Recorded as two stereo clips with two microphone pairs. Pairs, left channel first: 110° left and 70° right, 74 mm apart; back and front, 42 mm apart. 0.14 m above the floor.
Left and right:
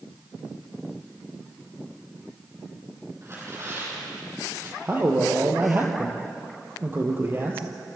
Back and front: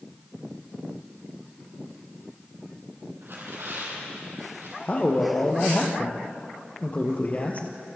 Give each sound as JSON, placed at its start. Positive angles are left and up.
{"t": 3.2, "sound": "tearing paper", "azimuth_deg": -20, "distance_m": 4.5}
{"t": 4.8, "sound": "a man speaking", "azimuth_deg": -130, "distance_m": 3.5}